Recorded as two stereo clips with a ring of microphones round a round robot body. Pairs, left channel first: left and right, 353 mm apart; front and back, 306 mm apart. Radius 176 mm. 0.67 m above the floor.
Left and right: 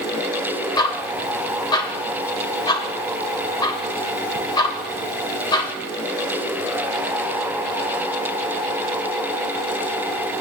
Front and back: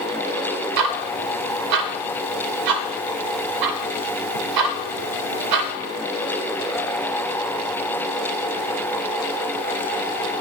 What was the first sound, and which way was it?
Ticking, 170° left.